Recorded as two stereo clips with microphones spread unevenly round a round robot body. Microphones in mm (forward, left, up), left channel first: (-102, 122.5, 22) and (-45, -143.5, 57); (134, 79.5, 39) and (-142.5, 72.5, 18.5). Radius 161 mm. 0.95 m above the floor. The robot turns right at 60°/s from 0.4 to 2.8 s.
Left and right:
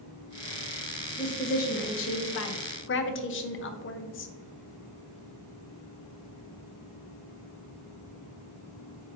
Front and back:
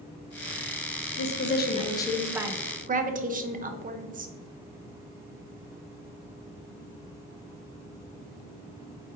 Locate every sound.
1.2 s a woman speaking: 30° left, 0.6 m; by 4.3 s 130° left, 0.6 m